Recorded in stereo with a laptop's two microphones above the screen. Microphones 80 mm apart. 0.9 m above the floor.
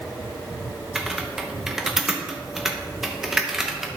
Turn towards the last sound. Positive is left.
turn(degrees=-5)  # may be behind; listen again after turning